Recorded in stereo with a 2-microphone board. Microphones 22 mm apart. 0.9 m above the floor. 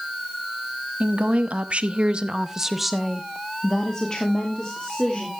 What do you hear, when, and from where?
1.0 s a woman speaking: 80° right, 1.3 m; by 5.3 s 45° left (ahead or behind), 2 m